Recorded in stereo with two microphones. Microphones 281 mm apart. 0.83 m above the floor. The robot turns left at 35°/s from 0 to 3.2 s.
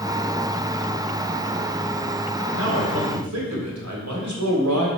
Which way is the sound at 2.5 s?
60° right (ahead or behind).